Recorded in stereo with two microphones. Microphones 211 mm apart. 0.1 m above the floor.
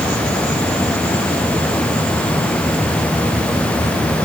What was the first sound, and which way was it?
Only background noise.